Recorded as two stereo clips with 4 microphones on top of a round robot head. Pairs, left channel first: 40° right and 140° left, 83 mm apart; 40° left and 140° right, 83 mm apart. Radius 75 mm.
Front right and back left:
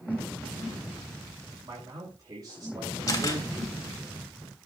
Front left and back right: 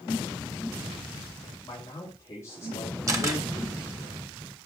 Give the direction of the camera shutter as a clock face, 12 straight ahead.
3 o'clock.